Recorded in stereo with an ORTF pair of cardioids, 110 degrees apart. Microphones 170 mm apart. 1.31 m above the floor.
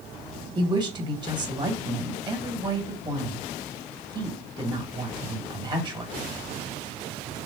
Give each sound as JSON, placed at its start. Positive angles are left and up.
{"t": 0.6, "sound": "a woman speaking", "azimuth_deg": -25, "distance_m": 1.7}